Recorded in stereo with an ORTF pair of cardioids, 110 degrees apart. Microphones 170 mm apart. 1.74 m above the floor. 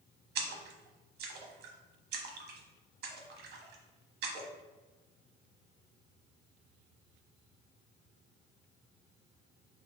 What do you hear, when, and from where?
0.3 s a splash: 65° right, 0.8 m